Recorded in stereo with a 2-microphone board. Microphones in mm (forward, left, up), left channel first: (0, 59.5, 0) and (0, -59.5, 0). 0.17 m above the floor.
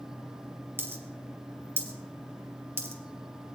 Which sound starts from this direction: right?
A dropped coin, at 0.8 s.